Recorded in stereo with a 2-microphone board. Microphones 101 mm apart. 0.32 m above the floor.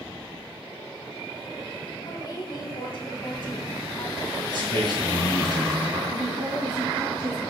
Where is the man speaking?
50° right (ahead or behind), 3 m.